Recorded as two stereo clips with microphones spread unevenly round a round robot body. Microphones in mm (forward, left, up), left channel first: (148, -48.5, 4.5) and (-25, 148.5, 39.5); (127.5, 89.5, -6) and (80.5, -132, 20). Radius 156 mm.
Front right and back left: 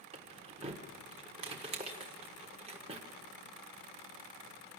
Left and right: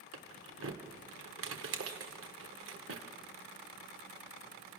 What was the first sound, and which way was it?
Keys jangling, 155° right.